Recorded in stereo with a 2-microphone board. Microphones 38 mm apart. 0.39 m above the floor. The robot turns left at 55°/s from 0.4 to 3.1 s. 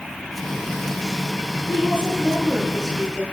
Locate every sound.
1.7 s a woman speaking: 105° right, 9.5 m; by 3.2 s 175° left, 9.5 m